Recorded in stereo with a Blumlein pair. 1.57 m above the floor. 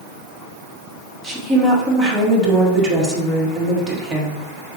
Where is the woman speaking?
15° right, 1.6 m.